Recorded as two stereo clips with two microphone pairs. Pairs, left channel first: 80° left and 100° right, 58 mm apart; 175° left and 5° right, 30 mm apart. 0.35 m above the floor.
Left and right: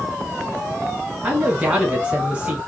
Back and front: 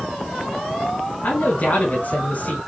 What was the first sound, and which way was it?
A man speaking, 170° right.